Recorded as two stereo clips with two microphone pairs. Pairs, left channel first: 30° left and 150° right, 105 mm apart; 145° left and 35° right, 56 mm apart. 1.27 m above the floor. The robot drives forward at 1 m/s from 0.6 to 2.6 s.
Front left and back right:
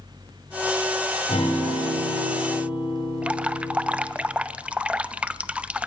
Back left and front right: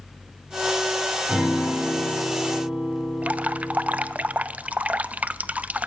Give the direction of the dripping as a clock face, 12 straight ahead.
3 o'clock.